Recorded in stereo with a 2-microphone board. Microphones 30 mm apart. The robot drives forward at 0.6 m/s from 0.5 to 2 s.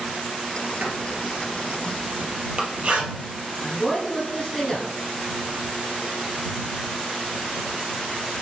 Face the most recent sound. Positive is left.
turn(degrees=0)  # may be behind; listen again after turning